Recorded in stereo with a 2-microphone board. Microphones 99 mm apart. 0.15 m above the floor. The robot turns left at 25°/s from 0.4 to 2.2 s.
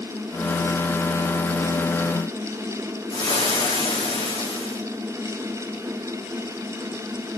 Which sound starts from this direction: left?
Frying, at 3.1 s.